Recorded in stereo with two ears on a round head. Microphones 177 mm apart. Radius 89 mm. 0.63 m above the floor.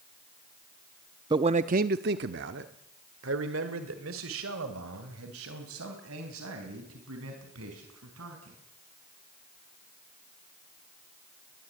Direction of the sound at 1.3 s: 20° right (ahead or behind).